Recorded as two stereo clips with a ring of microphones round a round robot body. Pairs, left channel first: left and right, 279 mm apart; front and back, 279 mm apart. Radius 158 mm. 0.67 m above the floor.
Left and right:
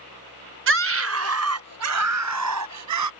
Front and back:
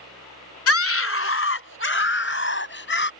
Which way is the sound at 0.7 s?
40° right.